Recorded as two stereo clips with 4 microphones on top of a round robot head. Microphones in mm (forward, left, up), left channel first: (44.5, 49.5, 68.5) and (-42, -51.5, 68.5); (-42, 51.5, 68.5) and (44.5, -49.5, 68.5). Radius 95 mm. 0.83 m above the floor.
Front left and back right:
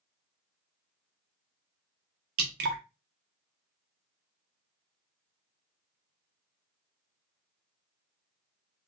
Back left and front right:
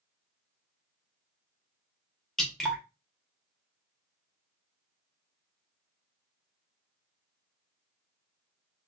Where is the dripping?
145° right, 0.6 m.